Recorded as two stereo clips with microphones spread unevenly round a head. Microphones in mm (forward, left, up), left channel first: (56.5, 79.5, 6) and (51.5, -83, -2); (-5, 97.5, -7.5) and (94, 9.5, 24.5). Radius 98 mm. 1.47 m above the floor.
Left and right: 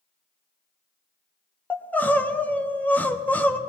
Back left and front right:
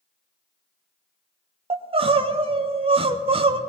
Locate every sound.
1.7 s crying: 10° left, 0.9 m